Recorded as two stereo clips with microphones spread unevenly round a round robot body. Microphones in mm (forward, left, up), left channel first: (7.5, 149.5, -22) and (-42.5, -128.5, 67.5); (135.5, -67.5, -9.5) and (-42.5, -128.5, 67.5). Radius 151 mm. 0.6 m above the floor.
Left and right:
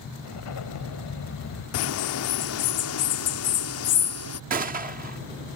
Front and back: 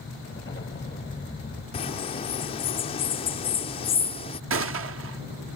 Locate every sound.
0.2 s an explosion: 85° left
1.7 s a bird: 70° left
4.5 s a gunshot: 170° right